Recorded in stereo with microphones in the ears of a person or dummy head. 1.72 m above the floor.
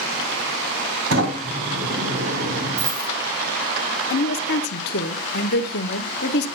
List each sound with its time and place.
1.1 s a sliding door: 65° right (ahead or behind), 3 m
2.8 s a dropped coin: 10° right (ahead or behind), 3 m
4.1 s a woman speaking: 55° left (ahead or behind), 0.8 m